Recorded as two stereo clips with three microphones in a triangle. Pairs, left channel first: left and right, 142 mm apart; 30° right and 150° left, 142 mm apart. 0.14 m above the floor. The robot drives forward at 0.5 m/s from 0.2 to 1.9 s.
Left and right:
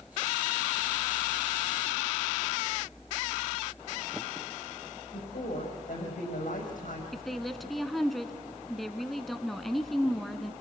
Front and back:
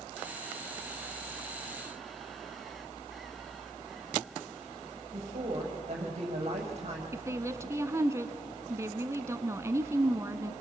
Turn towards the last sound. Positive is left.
turn(degrees=180)